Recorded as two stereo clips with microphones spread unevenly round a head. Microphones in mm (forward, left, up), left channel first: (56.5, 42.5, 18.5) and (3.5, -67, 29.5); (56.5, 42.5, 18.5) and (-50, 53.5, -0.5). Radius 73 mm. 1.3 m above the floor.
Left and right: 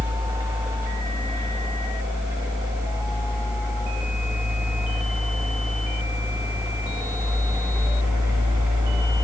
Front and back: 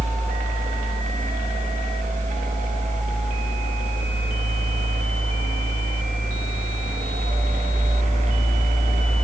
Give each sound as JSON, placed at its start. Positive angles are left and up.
{"t": 0.0, "sound": "a fan", "azimuth_deg": 175, "distance_m": 1.2}